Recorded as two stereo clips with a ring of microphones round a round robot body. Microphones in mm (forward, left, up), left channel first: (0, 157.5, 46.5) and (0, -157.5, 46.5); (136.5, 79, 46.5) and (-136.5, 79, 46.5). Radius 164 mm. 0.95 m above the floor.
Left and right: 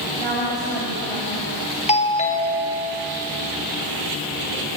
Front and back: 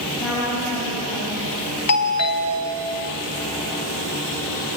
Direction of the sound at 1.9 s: 20° left.